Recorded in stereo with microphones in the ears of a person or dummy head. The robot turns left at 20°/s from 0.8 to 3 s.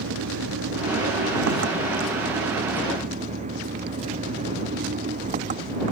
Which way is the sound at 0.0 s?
95° right.